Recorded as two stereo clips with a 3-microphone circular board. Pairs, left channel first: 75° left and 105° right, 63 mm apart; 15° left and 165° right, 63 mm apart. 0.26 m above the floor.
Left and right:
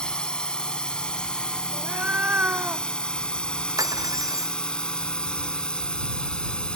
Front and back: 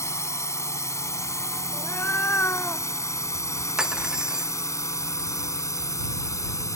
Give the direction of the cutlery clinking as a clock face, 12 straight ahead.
3 o'clock.